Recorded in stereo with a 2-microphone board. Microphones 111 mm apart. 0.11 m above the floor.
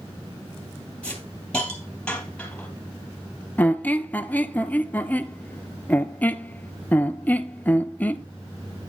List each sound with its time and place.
1.0 s a hiss: 10° left (ahead or behind), 3 m
3.6 s a squeak: 15° left (ahead or behind), 0.5 m